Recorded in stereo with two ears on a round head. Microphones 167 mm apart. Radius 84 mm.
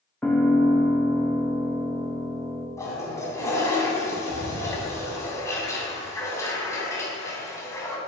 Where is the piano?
5° left (ahead or behind), 1.7 m.